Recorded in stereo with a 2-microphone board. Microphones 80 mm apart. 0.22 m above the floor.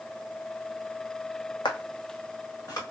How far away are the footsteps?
About 0.7 m.